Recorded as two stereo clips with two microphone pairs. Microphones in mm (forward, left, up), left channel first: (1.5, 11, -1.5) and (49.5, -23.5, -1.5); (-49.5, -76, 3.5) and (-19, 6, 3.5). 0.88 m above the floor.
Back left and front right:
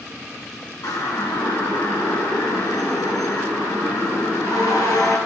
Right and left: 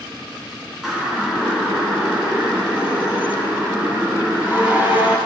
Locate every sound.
0.8 s a siren: 155° left, 9 m; by 5.2 s 145° left, 14 m